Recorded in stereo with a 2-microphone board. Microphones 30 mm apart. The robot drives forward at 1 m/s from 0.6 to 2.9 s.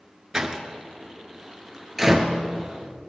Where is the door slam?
20° right (ahead or behind), 1.1 m; by 2.4 s 15° right (ahead or behind), 1.6 m.